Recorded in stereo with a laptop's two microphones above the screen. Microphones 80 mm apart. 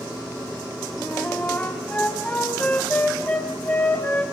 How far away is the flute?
About 3.5 m.